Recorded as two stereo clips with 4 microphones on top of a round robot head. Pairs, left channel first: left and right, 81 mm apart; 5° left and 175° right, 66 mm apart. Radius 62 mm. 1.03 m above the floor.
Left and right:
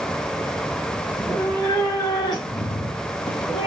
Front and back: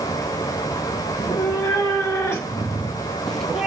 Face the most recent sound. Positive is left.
turn(degrees=110)